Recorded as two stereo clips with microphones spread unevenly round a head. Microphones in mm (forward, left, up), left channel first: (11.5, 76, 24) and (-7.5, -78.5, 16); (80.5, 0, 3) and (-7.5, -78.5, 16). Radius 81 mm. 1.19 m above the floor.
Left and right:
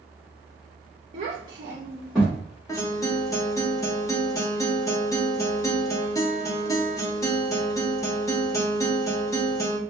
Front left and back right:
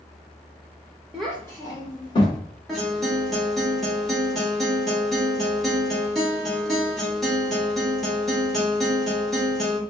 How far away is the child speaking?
About 0.6 m.